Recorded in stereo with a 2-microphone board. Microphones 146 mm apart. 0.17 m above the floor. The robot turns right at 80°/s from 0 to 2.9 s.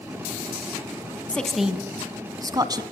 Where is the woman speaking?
10° left (ahead or behind), 1.3 m; by 2.8 s 25° right (ahead or behind), 1.3 m.